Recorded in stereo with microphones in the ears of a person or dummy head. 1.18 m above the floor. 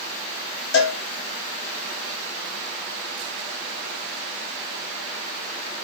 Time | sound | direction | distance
0.7 | a cowbell | 75° left (ahead or behind) | 0.7 m